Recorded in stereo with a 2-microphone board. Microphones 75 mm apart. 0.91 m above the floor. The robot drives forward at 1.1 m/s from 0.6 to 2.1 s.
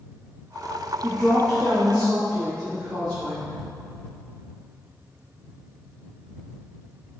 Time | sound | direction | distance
1.0 | a woman speaking | 15° left (ahead or behind) | 1.5 m